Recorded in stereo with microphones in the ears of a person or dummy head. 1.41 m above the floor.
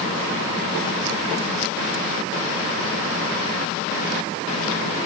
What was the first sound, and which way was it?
Only background noise.